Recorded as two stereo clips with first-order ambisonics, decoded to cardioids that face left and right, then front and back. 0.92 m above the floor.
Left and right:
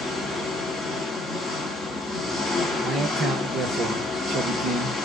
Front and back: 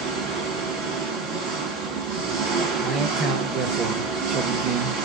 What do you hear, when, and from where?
0.0 s an engine running: 160° left, 1.9 m
2.8 s a man speaking: 145° right, 0.8 m